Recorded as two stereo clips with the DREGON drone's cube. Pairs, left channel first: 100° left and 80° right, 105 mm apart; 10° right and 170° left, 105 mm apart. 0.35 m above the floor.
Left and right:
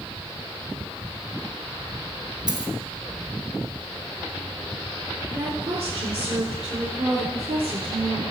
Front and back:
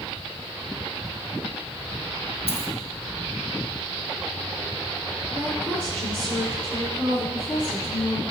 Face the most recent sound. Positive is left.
turn(degrees=-90)